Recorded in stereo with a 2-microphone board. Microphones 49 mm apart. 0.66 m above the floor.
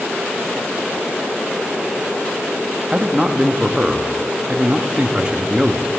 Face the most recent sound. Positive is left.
turn(degrees=-20)  # may be behind; listen again after turning